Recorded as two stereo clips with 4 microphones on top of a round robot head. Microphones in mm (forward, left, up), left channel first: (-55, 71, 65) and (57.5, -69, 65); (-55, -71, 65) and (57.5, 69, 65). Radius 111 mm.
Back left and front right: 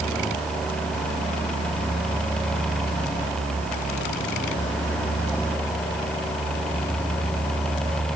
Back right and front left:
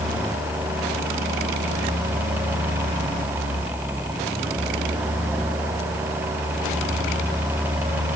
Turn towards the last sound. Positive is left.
No sound to turn to.